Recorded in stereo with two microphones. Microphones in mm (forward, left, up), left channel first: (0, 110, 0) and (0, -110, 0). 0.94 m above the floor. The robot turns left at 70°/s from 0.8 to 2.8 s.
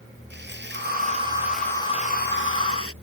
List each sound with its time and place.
0.3 s sawing: 125° right; by 2.9 s 95° left